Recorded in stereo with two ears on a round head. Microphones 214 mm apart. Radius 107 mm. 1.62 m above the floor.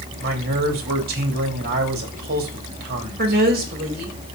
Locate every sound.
0.2 s a man speaking: 40° right (ahead or behind), 3 m
3.2 s a woman speaking: 40° right (ahead or behind), 3 m